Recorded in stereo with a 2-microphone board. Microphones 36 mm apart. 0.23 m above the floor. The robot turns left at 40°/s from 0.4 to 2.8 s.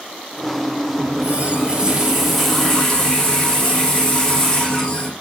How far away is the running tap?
About 5 m.